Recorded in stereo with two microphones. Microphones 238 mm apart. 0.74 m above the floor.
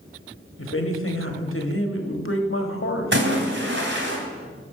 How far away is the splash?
About 2 m.